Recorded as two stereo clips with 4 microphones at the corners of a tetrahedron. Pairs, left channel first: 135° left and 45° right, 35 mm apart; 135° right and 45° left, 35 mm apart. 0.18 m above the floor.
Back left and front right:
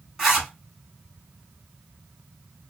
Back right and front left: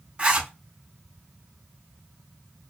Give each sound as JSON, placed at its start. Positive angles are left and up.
{"t": 0.2, "sound": "a zipper", "azimuth_deg": 30, "distance_m": 2.0}